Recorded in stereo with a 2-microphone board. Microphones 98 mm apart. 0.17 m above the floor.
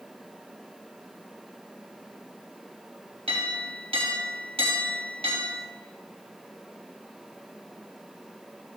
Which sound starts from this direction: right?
A clink, at 3.3 s.